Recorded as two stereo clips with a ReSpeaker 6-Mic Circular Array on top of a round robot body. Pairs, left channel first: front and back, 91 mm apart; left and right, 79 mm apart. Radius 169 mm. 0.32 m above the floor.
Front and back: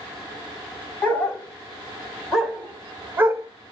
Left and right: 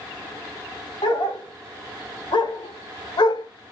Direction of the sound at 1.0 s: 75° left.